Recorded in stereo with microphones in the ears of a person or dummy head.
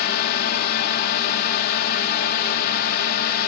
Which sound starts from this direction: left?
A drone, at 0.0 s.